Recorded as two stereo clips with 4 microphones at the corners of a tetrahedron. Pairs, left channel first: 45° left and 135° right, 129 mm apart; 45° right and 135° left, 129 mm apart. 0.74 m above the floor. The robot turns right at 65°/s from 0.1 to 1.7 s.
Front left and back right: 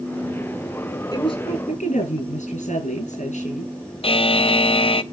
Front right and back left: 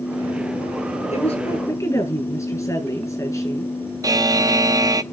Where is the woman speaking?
15° right, 7 m; by 3.7 s 25° left, 7 m.